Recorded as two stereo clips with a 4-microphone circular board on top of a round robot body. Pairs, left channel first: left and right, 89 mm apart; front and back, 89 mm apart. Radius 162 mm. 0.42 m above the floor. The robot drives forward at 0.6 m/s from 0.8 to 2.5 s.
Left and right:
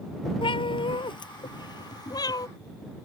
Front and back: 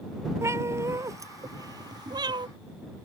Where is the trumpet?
No trumpet in this recording.